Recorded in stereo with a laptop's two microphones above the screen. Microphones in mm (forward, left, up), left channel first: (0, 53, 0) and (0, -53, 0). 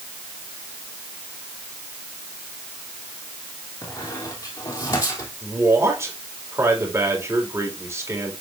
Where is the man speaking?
25° right (ahead or behind), 4 m.